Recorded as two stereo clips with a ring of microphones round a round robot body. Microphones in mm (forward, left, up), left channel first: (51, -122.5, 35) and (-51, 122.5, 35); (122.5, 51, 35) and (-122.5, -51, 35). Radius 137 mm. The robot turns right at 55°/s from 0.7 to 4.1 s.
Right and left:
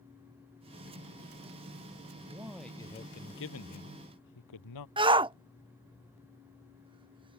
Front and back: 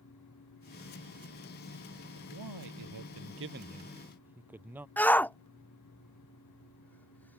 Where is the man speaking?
Straight behind; by 4.9 s 75° right.